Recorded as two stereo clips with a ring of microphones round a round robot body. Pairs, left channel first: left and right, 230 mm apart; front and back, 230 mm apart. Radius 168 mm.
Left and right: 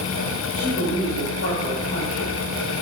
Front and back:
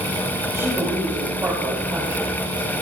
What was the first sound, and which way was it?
A woman speaking, 105° left.